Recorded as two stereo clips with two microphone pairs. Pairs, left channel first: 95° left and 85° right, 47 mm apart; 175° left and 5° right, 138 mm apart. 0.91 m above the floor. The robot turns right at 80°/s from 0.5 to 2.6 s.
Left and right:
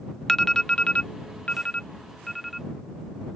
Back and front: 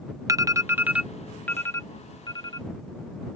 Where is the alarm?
25° left; by 2.7 s 165° right.